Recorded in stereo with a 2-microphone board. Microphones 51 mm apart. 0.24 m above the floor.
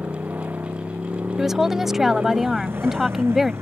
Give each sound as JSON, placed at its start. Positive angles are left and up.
{"t": 0.0, "sound": "a motorcycle", "side_deg": -35}
{"t": 1.4, "sound": "a woman speaking", "side_deg": -5}